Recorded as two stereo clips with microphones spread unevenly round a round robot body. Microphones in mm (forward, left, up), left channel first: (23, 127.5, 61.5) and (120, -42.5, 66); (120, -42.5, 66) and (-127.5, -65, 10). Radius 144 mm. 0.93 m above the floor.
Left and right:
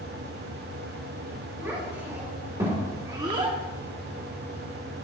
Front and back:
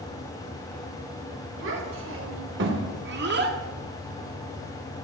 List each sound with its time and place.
1.6 s a child speaking: 140° right, 4 m; by 3.6 s 130° right, 1.6 m